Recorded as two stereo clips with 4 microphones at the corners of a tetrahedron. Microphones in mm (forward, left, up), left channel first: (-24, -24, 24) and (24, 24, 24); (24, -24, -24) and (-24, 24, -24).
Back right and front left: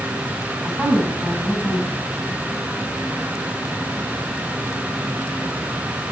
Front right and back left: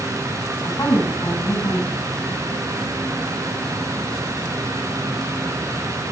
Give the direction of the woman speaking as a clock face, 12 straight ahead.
1 o'clock.